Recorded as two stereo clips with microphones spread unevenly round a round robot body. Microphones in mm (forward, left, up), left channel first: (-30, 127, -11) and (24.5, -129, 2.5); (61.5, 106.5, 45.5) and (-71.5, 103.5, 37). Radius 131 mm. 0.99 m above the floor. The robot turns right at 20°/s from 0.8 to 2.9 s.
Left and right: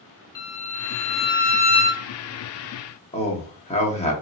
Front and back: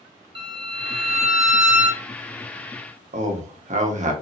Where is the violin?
125° left, 1.3 m; by 2.0 s 150° left, 1.3 m.